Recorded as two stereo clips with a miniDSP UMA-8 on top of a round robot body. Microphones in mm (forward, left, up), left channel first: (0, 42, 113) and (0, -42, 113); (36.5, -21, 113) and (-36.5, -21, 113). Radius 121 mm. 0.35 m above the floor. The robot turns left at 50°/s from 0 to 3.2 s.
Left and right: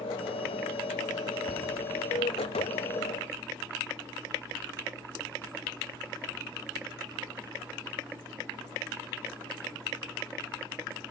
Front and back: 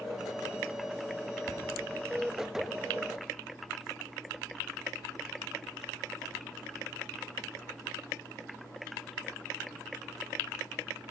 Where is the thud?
85° left, 1.5 m; by 1.7 s 70° left, 1.5 m.